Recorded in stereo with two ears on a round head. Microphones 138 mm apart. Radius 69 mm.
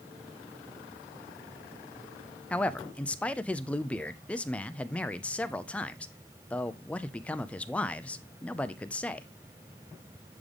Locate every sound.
2.5 s a man speaking: 10° left (ahead or behind), 0.5 m